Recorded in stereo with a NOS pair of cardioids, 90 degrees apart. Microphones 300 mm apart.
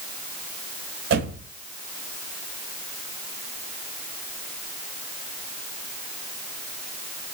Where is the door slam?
55° right, 5 m.